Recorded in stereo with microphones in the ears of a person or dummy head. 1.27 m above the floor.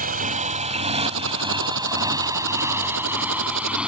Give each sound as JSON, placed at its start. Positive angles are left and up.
{"t": 0.0, "sound": "a motorcycle", "side_deg": -40}
{"t": 1.1, "sound": "typing on a keyboard", "side_deg": -70}